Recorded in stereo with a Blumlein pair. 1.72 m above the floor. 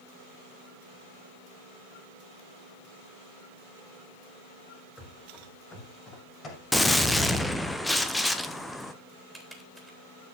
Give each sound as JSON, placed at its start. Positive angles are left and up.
{"t": 5.0, "sound": "running footsteps", "azimuth_deg": 15, "distance_m": 5.5}
{"t": 6.7, "sound": "a gunshot", "azimuth_deg": 5, "distance_m": 1.1}
{"t": 9.3, "sound": "typing on a keyboard", "azimuth_deg": -5, "distance_m": 3.5}